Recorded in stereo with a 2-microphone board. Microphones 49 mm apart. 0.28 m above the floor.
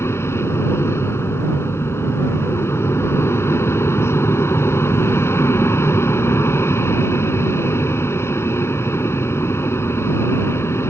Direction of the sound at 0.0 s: 55° left (ahead or behind).